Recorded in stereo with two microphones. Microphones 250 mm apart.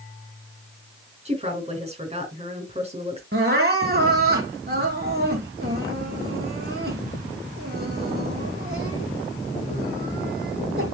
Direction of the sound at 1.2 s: 25° right (ahead or behind).